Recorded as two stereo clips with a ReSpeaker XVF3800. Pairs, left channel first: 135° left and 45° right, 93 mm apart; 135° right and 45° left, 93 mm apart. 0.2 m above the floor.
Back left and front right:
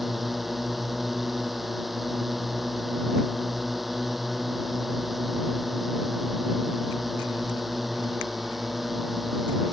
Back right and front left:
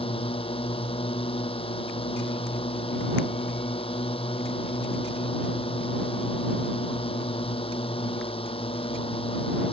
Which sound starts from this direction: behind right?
A drone, at 0.0 s.